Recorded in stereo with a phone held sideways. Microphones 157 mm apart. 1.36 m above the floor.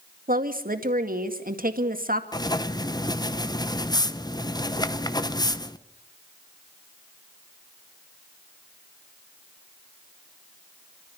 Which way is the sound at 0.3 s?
65° right (ahead or behind).